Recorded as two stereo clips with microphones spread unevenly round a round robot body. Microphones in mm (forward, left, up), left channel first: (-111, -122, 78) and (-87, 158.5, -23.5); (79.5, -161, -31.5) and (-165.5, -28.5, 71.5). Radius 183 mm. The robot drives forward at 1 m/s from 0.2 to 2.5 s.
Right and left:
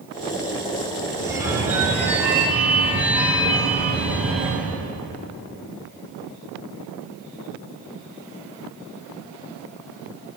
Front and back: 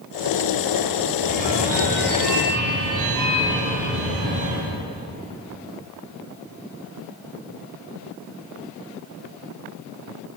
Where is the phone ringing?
155° left, 1.8 m; by 4.8 s 165° left, 3 m.